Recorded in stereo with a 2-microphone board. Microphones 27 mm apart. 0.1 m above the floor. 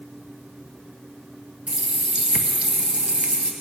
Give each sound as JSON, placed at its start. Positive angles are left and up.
{"t": 1.7, "sound": "a running tap", "side_deg": -45, "distance_m": 1.3}